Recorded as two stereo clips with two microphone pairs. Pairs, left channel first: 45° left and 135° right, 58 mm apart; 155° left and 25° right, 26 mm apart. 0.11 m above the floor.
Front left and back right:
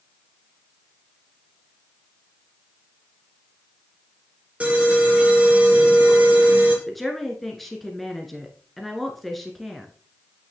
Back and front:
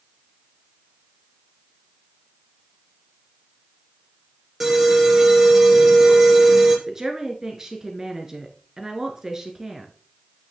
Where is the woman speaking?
35° right, 1.4 m.